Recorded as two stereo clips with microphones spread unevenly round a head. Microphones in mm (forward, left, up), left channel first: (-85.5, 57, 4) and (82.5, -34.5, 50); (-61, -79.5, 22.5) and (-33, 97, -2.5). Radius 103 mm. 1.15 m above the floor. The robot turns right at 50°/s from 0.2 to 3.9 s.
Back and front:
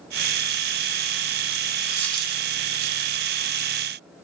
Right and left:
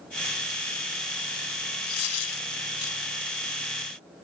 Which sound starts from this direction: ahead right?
A dropped coin, at 1.9 s.